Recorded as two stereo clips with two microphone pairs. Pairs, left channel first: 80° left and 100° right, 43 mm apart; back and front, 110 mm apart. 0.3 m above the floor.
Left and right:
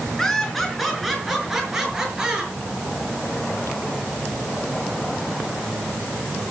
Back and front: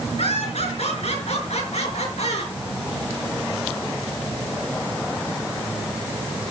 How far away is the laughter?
About 4.5 m.